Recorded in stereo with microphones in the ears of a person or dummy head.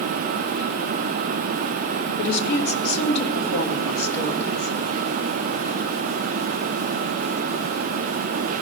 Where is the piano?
No piano in this recording.